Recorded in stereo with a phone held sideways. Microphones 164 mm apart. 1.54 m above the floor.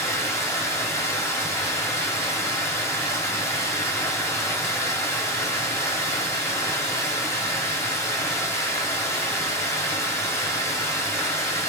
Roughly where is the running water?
Centre.